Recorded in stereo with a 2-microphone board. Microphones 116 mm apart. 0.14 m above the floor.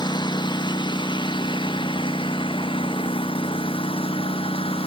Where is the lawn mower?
40° left (ahead or behind); by 4.9 s 50° left (ahead or behind).